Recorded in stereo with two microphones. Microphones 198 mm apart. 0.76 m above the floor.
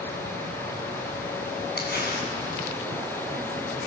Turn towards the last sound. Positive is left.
turn(degrees=60)  # may be behind; listen again after turning